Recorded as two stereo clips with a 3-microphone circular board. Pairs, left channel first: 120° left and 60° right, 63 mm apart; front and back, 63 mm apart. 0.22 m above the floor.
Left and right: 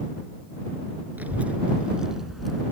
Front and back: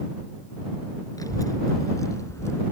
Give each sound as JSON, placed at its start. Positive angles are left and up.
{"t": 1.2, "sound": "a child speaking", "azimuth_deg": 0}